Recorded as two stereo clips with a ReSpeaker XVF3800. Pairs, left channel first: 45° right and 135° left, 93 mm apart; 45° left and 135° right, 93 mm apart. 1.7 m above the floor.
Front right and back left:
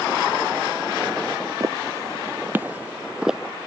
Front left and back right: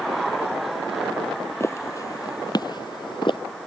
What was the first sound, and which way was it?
Footsteps, 100° left.